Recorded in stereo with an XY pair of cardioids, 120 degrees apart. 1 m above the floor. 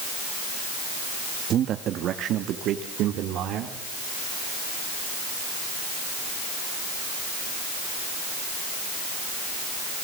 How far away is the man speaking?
About 1.3 m.